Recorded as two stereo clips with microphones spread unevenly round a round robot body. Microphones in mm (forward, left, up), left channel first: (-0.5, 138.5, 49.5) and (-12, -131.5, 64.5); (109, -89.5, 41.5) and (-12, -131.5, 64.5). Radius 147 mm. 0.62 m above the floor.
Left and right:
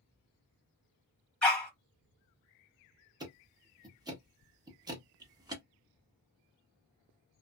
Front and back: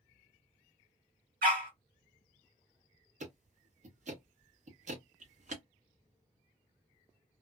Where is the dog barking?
175° left, 1.1 m.